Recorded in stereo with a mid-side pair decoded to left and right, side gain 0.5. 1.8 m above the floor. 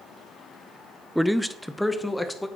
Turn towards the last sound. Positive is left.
turn(degrees=5)